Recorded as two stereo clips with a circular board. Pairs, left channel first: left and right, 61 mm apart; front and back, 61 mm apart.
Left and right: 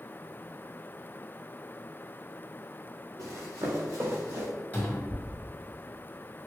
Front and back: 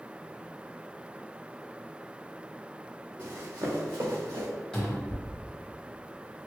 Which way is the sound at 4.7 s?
65° left.